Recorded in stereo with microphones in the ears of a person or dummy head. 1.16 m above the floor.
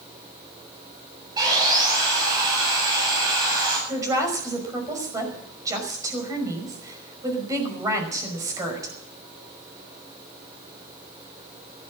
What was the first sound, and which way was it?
Sawing, 25° right (ahead or behind).